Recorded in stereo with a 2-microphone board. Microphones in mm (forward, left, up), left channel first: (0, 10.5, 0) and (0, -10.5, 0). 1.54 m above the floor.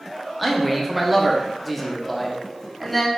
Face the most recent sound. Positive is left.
turn(degrees=5)  # may be behind; listen again after turning